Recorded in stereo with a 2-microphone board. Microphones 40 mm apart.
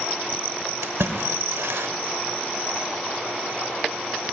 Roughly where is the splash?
Right.